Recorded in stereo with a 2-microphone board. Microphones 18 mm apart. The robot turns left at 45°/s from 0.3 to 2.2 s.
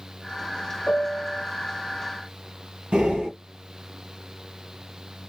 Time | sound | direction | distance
0.9 | a piano | 40° left (ahead or behind) | 0.7 m
2.9 | breathing | 60° right (ahead or behind) | 1.4 m